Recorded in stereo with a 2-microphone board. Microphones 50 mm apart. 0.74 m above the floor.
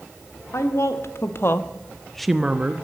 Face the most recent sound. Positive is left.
turn(degrees=-35)  # may be behind; listen again after turning